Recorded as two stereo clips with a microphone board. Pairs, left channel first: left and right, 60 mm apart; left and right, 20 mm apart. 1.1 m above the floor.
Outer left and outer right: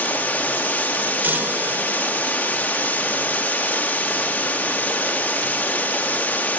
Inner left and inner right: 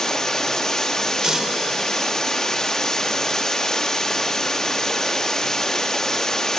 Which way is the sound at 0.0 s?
30° left (ahead or behind).